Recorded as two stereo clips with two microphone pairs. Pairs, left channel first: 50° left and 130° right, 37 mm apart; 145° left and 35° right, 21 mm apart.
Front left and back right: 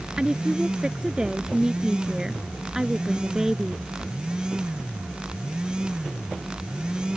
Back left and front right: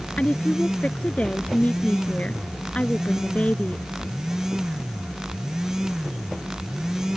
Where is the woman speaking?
160° left; by 3.8 s 150° left.